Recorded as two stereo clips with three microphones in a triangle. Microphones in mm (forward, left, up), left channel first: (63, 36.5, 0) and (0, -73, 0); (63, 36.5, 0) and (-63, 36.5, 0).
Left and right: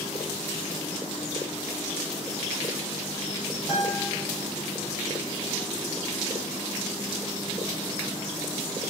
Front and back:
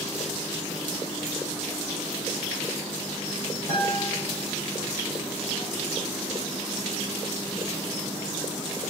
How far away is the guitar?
About 2.5 m.